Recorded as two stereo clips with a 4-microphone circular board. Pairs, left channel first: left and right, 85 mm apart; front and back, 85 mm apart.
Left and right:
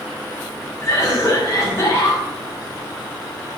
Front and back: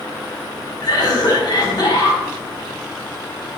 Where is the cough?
35° left, 4 m.